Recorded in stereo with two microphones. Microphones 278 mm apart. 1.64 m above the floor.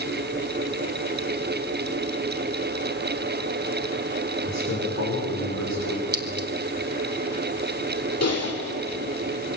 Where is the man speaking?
70° left (ahead or behind), 6.5 m; by 6.0 s 75° left (ahead or behind), 5.5 m.